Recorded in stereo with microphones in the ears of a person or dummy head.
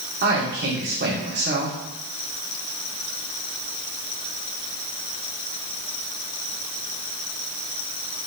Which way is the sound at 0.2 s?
55° right (ahead or behind).